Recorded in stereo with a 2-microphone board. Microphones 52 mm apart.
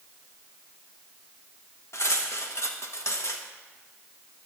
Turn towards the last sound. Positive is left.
turn(degrees=60)  # may be behind; listen again after turning